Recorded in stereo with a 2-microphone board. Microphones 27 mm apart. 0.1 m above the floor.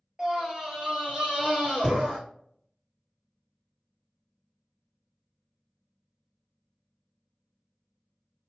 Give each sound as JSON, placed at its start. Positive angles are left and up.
{"t": 0.2, "sound": "a scream", "side_deg": -25, "distance_m": 1.9}